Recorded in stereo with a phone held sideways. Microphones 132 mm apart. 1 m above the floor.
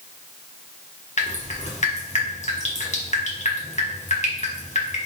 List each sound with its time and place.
1.2 s dripping: 60° left (ahead or behind), 1.0 m